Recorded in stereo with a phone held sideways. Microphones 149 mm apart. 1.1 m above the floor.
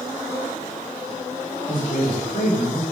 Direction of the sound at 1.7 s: 75° left (ahead or behind).